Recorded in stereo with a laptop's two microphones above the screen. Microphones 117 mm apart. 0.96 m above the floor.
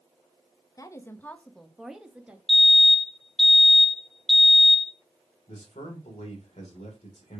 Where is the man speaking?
80° left, 2.5 m.